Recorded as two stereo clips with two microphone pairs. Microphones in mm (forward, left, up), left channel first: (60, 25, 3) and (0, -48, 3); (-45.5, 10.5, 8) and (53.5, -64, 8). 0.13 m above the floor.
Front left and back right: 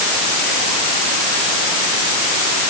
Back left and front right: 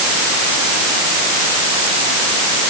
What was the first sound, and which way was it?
Only background noise.